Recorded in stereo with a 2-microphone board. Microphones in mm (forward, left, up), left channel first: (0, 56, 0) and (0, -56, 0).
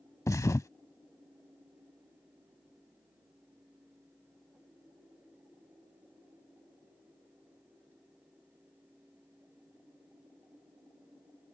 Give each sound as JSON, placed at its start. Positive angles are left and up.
{"t": 0.3, "sound": "a thud", "side_deg": 30}